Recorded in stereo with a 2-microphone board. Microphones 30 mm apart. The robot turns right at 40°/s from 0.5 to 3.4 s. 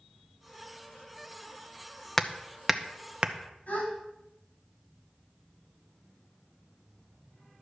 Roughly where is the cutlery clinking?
I don't hear cutlery clinking.